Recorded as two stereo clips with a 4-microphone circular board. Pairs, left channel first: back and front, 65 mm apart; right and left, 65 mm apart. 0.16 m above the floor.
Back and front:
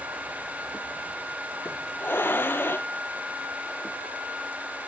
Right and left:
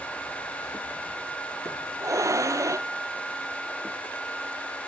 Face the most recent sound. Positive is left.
turn(degrees=125)